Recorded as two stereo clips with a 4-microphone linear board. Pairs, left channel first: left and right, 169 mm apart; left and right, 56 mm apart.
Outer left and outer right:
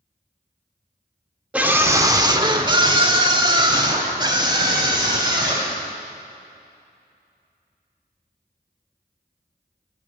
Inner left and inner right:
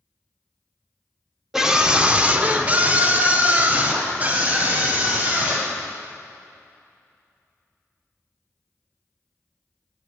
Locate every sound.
1.5 s a scream: 10° right (ahead or behind), 0.7 m; by 5.7 s 25° right (ahead or behind), 3 m